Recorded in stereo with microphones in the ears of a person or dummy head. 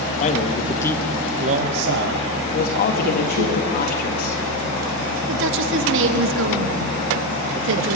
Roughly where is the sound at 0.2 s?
Left.